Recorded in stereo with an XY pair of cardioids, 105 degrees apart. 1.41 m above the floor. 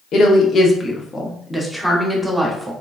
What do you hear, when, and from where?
0.1 s a woman speaking: 65° left, 0.9 m; by 2.7 s 10° right, 1.3 m